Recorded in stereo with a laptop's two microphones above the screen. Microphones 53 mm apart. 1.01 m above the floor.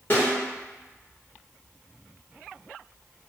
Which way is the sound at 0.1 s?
40° left (ahead or behind).